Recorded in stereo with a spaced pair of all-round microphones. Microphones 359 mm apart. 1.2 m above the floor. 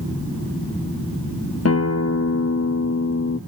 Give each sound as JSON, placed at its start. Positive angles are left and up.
{"t": 1.6, "sound": "a guitar", "side_deg": 45, "distance_m": 0.5}